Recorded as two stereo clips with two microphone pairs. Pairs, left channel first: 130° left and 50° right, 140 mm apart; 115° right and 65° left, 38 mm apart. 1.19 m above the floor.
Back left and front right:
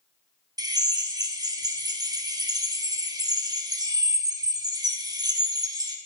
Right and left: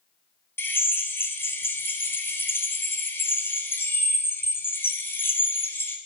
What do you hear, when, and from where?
0.6 s a drill: 115° right, 1.5 m